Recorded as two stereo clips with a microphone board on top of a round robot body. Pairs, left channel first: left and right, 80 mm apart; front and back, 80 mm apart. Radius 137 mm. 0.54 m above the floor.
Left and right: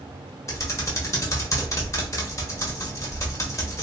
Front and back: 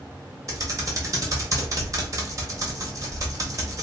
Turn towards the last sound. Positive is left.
turn(degrees=135)